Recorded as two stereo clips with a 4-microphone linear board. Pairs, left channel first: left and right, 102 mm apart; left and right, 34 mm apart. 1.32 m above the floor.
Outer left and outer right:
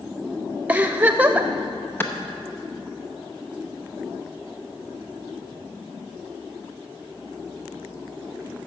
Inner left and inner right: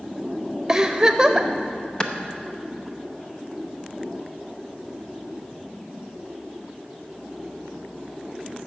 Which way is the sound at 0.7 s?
15° right (ahead or behind).